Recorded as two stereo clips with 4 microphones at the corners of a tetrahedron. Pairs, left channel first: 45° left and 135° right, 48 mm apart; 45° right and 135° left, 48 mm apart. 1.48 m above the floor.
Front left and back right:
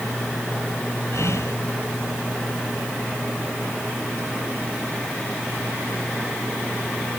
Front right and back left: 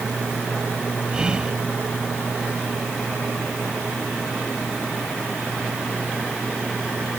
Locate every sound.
1.1 s whispering: 65° left